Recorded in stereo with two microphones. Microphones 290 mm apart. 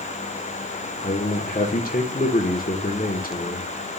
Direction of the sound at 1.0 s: 30° left (ahead or behind).